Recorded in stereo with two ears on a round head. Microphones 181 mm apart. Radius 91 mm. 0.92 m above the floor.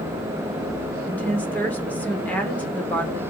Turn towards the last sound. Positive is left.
turn(degrees=10)  # may be behind; listen again after turning